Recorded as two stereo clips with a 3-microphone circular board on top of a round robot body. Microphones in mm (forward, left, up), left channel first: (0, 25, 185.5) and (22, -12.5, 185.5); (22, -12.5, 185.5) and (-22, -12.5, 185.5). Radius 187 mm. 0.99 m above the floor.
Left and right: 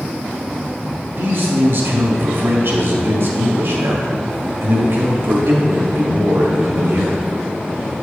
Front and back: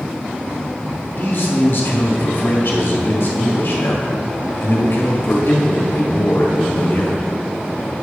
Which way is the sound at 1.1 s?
35° right.